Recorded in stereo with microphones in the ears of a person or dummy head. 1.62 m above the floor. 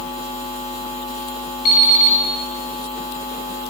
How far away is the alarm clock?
About 6 m.